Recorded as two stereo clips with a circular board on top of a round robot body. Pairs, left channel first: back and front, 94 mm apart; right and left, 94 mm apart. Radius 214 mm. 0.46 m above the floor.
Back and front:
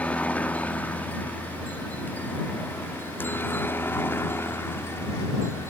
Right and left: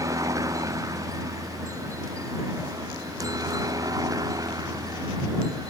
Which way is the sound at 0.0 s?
110° left.